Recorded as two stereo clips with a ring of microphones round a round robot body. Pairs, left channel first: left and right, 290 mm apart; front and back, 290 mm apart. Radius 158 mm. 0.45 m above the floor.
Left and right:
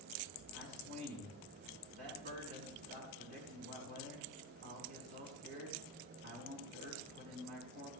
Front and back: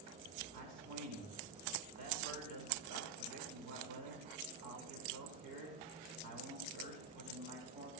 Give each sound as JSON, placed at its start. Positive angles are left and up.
{"t": 0.5, "sound": "a man speaking", "azimuth_deg": -155, "distance_m": 5.5}